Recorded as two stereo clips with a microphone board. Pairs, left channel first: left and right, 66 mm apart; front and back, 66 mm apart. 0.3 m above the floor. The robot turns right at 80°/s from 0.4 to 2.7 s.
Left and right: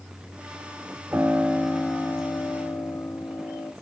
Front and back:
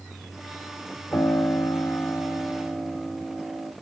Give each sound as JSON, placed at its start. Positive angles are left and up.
{"t": 1.1, "sound": "a piano", "azimuth_deg": -35, "distance_m": 1.0}